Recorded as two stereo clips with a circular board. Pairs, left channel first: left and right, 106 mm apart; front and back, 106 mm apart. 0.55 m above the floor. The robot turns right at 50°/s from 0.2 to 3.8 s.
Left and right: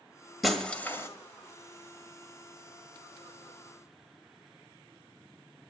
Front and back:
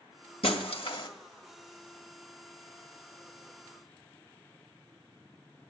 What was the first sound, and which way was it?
Breaking glass, straight ahead.